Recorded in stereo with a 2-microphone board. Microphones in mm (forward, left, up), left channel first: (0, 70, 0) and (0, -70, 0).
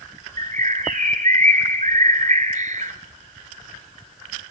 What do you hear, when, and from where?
0.4 s a bird: 65° right (ahead or behind), 1.5 m